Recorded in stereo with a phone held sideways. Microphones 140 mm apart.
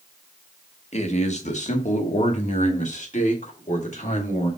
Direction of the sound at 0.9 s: 55° left (ahead or behind).